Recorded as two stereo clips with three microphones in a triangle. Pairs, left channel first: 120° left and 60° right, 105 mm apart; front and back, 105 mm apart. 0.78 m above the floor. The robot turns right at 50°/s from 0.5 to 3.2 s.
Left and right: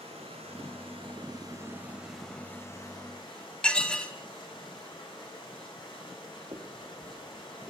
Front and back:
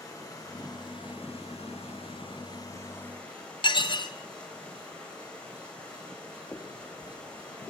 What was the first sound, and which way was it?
Running water, 55° right.